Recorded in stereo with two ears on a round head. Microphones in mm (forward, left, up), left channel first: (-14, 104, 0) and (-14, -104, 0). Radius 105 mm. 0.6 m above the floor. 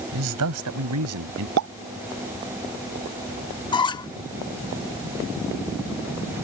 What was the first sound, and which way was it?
A man speaking, 75° right (ahead or behind).